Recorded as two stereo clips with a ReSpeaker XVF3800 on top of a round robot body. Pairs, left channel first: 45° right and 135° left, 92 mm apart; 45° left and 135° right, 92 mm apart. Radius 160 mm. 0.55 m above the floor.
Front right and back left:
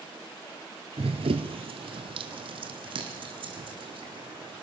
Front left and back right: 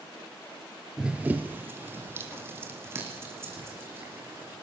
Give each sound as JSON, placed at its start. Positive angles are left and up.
{"t": 1.0, "sound": "running footsteps", "azimuth_deg": 140, "distance_m": 0.5}